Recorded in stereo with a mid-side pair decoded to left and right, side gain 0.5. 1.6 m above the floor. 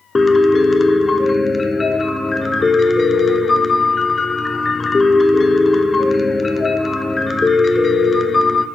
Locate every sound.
0.1 s a piano: 25° left, 1.0 m